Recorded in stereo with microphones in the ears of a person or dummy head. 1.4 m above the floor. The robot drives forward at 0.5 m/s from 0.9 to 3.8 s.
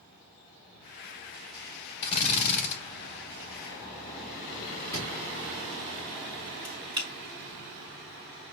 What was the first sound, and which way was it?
A drill, 35° left (ahead or behind).